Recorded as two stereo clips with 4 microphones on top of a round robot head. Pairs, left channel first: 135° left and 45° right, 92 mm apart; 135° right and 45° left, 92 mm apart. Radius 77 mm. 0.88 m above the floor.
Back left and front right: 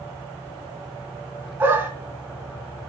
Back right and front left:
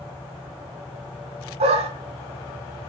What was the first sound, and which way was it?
A dog barking, 25° left.